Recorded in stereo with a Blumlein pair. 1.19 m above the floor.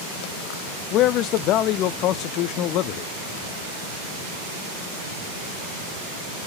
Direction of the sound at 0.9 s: 35° left.